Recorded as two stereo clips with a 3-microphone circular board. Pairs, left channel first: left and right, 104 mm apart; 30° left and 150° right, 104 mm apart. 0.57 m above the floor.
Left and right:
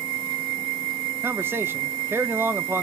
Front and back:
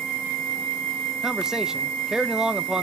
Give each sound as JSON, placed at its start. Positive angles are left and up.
{"t": 1.2, "sound": "a man speaking", "azimuth_deg": -75, "distance_m": 0.8}